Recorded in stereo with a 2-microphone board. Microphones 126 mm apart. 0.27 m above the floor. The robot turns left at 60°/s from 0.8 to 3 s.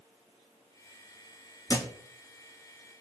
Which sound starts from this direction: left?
A thud, at 1.7 s.